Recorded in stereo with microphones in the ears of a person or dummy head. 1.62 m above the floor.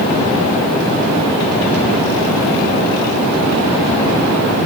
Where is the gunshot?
I don't hear a gunshot.